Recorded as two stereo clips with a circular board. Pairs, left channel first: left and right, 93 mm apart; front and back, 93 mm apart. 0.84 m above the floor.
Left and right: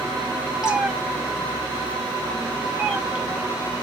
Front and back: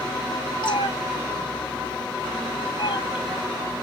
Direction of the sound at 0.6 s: 10° right.